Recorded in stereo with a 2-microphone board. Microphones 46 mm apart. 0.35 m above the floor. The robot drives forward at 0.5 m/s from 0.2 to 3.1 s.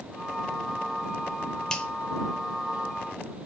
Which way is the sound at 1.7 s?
15° left (ahead or behind).